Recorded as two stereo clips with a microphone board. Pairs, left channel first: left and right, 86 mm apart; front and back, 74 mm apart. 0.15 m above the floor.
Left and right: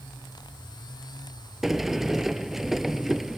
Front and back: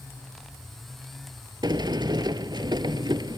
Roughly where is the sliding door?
Behind.